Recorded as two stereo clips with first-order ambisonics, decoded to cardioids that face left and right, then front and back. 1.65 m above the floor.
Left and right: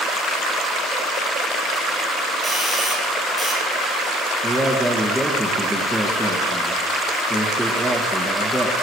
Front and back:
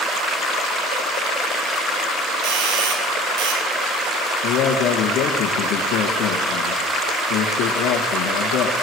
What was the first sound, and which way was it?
A doorbell, straight behind.